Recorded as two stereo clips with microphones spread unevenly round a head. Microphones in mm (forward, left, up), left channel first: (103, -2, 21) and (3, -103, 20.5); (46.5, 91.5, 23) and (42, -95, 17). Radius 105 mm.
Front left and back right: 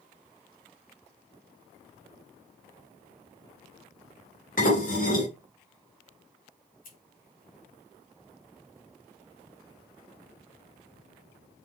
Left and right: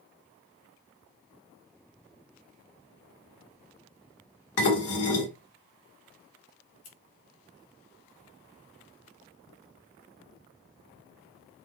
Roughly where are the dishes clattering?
Left.